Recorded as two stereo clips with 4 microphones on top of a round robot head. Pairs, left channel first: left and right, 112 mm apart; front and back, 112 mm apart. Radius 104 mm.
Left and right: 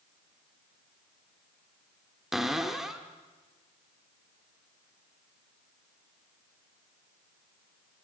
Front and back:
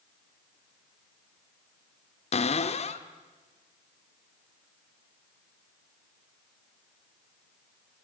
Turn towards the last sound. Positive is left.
turn(degrees=-5)